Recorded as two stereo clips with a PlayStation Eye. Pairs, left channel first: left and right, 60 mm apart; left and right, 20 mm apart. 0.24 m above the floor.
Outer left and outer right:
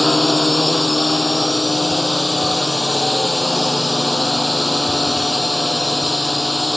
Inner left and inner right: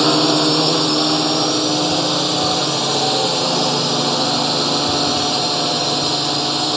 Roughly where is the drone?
Centre.